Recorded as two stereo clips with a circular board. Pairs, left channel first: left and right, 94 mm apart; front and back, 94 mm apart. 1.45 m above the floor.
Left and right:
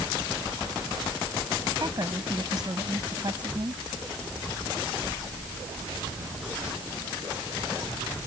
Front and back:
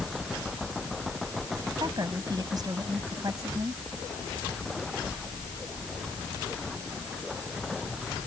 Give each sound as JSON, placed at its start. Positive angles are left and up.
{"t": 1.8, "sound": "a woman speaking", "azimuth_deg": -135}